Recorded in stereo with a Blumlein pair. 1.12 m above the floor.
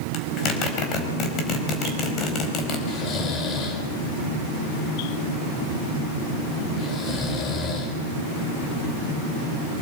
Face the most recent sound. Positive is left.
turn(degrees=30)